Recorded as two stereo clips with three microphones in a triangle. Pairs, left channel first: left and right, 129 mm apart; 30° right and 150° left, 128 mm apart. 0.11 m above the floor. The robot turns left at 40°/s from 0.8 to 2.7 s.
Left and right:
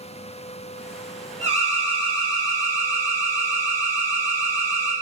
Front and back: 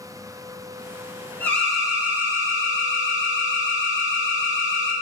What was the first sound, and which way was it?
An alarm, 105° right.